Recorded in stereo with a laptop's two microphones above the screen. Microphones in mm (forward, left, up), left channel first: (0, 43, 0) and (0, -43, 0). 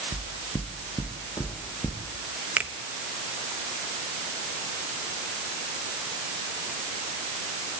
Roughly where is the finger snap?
Centre.